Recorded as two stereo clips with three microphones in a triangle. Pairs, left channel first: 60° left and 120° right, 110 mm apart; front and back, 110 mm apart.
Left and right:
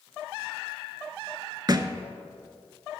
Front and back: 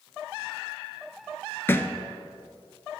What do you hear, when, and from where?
1.7 s a thud: 65° right, 0.5 m